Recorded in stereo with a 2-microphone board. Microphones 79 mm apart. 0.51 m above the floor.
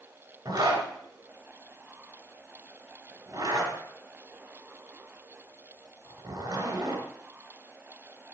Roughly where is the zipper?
Right.